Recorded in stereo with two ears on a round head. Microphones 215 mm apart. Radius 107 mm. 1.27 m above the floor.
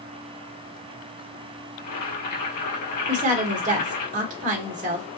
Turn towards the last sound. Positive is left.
turn(degrees=-30)  # may be behind; listen again after turning